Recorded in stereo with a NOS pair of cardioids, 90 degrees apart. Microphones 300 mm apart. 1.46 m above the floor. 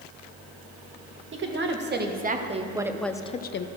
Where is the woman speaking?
40° right, 1.8 m; by 3.7 s 45° left, 0.7 m.